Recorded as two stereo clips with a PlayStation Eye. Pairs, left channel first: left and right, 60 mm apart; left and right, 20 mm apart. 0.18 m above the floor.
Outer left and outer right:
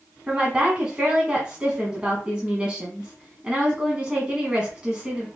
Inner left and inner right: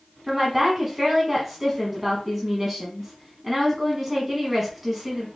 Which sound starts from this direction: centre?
A woman speaking, at 0.3 s.